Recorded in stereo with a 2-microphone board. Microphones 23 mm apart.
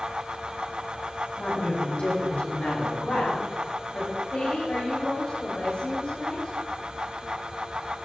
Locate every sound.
1.4 s a woman speaking: 65° left (ahead or behind), 5.5 m
4.3 s a woman speaking: 70° left (ahead or behind), 3 m